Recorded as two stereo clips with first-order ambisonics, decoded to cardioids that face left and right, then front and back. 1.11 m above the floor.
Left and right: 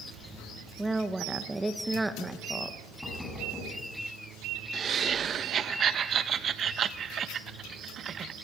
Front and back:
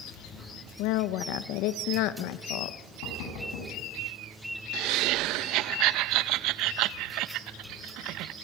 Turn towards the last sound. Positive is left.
turn(degrees=-150)